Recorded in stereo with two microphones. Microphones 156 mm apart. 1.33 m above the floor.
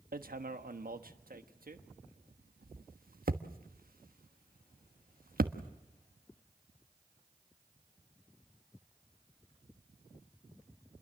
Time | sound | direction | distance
0.1 | hammering | 70° right (ahead or behind) | 1.2 m